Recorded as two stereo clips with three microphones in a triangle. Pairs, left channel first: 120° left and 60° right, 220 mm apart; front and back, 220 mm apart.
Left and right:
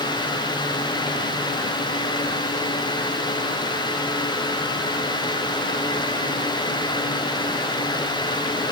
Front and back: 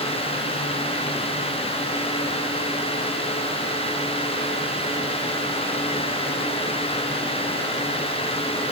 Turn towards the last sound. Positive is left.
No sound to turn to.